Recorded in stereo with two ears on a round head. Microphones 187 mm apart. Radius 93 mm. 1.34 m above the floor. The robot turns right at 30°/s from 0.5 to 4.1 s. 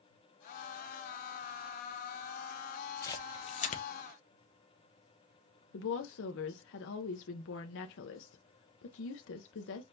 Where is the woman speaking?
60° left (ahead or behind), 0.6 m.